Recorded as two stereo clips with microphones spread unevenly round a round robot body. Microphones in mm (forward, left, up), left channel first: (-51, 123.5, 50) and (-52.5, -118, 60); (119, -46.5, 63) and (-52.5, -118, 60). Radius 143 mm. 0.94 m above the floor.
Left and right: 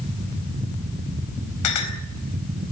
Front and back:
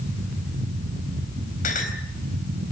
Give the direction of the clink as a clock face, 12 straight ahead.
9 o'clock.